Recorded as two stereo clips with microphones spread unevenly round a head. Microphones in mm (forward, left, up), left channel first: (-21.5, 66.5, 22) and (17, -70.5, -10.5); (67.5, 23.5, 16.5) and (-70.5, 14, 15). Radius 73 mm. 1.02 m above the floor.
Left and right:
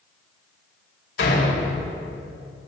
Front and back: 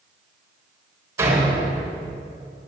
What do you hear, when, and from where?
1.2 s a door slam: 115° left, 4 m